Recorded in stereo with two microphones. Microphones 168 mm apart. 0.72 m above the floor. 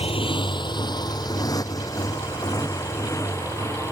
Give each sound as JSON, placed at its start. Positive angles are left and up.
{"t": 0.0, "sound": "a motorcycle", "side_deg": 35}